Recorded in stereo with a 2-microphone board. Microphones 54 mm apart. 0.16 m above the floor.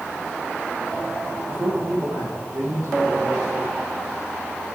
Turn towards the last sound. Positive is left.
turn(degrees=-75)  # may be behind; listen again after turning